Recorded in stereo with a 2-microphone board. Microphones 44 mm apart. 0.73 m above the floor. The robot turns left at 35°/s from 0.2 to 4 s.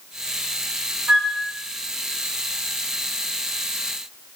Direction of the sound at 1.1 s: 20° right (ahead or behind).